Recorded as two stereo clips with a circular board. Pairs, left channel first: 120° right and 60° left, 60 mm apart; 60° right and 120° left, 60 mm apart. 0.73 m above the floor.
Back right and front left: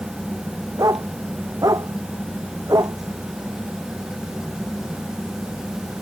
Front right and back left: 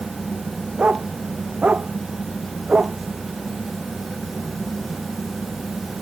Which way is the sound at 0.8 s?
50° left.